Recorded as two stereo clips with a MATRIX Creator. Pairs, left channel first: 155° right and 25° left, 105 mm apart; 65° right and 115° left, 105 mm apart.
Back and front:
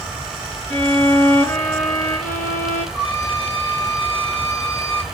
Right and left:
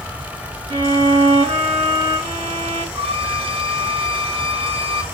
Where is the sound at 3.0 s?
100° left, 1.8 m.